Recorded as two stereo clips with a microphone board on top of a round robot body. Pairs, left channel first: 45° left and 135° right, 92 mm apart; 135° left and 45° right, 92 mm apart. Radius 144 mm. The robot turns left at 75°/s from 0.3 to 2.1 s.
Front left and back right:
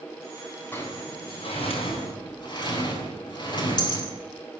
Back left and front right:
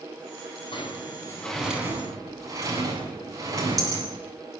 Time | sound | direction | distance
0.7 | a sliding door | 110° left | 8 m